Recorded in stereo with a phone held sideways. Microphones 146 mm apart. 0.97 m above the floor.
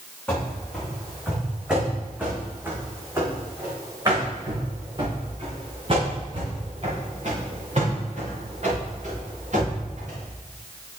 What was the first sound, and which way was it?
Running footsteps, 5° left (ahead or behind).